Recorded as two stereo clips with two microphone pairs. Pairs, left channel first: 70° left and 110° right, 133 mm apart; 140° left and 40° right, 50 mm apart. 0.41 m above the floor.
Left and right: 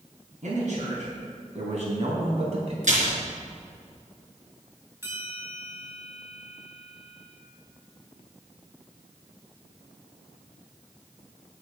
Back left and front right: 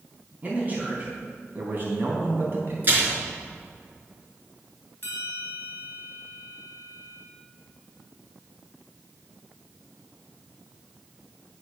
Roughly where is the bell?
Behind.